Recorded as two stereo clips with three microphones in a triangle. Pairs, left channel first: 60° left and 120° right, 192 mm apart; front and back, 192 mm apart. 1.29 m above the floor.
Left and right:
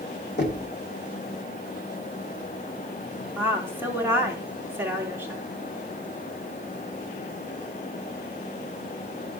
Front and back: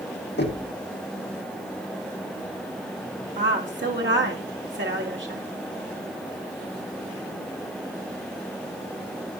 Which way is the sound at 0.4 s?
30° left.